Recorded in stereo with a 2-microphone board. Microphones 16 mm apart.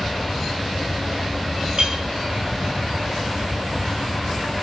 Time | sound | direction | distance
1.8 | a clink | 65° right (ahead or behind) | 1.9 m